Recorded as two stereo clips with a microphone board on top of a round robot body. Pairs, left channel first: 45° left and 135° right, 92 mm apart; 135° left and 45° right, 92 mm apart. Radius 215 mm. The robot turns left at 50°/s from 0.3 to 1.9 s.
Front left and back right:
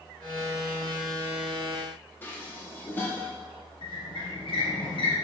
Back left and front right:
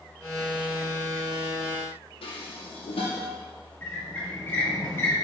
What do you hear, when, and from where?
2.2 s dishes clattering: 115° left, 1.0 m
3.8 s a squeak: 70° left, 0.8 m